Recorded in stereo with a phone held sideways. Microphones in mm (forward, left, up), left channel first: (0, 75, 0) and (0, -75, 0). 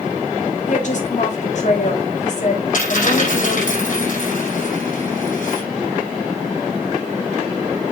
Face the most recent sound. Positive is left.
turn(degrees=55)  # may be behind; listen again after turning